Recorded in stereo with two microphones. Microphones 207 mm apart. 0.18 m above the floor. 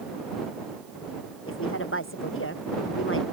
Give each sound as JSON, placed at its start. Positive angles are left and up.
{"t": 1.5, "sound": "a woman speaking", "side_deg": 85}